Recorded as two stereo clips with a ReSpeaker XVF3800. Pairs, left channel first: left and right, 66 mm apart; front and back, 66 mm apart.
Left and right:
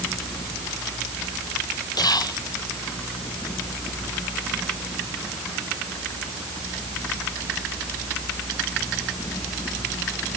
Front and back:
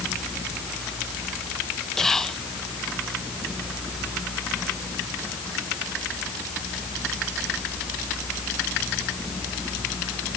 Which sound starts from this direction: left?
Whispering, at 2.0 s.